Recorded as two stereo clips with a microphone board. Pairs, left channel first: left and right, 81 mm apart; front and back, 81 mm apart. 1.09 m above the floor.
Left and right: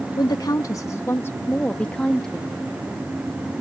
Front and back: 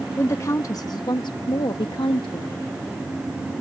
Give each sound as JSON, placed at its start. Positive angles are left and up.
{"t": 0.2, "sound": "a woman speaking", "azimuth_deg": 60}